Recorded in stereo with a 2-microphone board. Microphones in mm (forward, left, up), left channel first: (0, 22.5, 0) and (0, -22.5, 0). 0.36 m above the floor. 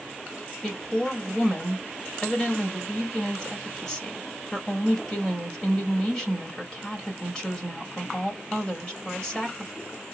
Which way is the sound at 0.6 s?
20° left (ahead or behind).